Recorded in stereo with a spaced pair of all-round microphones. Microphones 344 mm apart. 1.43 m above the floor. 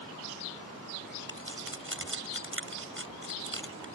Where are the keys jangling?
35° right (ahead or behind).